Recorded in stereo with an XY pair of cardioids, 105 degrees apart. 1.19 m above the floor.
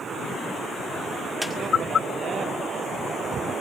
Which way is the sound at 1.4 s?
5° right.